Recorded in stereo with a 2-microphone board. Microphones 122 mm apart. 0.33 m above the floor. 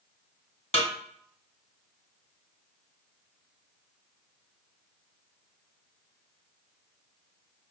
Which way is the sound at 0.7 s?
70° left (ahead or behind).